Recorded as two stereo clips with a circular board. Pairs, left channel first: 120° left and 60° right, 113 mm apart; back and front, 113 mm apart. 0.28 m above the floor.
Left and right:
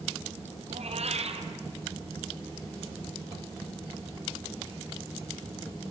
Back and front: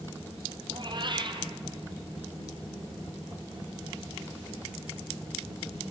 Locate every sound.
0.7 s a cat meowing: 45° right, 2.0 m